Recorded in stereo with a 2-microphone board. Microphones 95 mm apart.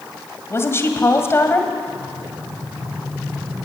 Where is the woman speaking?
30° left (ahead or behind), 2 m.